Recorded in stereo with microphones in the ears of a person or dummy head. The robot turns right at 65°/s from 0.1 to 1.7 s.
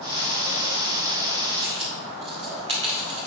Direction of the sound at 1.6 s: 25° right (ahead or behind).